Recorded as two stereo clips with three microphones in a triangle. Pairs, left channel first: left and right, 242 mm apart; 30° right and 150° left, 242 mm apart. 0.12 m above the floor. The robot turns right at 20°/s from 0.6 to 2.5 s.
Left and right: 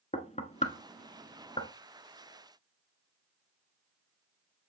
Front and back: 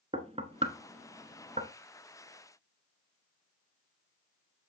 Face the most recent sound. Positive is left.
turn(degrees=155)